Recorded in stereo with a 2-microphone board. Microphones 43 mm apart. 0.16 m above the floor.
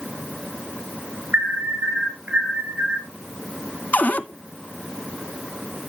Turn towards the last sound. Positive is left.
turn(degrees=35)  # may be behind; listen again after turning